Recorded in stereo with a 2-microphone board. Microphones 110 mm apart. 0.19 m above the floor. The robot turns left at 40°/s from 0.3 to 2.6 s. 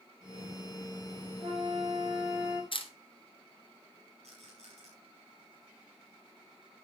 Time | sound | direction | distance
1.4 | a flute | 115° right | 7.5 m
2.7 | a camera shutter | 55° left (ahead or behind) | 1.9 m
4.2 | a rattle | 85° right | 6.5 m